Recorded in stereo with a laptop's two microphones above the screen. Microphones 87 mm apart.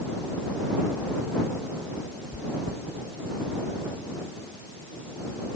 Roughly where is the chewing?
Right.